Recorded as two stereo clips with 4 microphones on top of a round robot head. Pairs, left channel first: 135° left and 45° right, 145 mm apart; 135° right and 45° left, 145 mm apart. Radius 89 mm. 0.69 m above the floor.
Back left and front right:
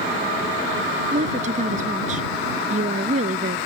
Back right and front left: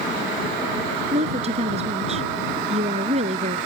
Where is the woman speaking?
Straight ahead.